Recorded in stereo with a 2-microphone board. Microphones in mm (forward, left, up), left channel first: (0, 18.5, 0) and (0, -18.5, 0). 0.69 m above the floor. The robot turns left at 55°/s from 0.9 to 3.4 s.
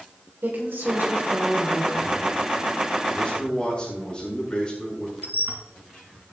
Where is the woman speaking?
110° right, 4 m; by 2.0 s 170° right, 4 m.